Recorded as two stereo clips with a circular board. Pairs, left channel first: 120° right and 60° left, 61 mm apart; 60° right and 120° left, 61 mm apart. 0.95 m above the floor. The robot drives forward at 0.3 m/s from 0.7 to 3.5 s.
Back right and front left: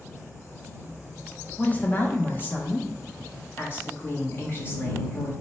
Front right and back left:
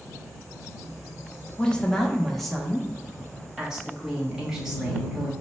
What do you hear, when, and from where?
1.6 s a woman speaking: 110° right, 0.6 m; by 5.3 s 160° right, 0.9 m